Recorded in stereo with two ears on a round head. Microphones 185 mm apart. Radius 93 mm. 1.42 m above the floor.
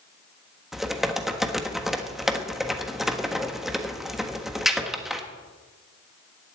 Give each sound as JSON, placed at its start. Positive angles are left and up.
{"t": 0.7, "sound": "typing on a keyboard", "side_deg": 0, "distance_m": 1.4}